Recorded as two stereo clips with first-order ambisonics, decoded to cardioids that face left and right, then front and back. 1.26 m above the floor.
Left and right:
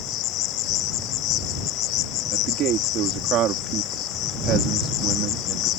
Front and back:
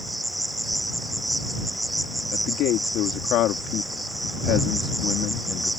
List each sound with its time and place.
0.0 s an insect: 100° left
2.3 s a man speaking: 40° right